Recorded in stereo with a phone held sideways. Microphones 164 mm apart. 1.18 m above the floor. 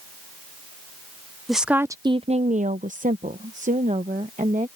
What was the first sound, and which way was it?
A woman speaking, centre (ahead or behind).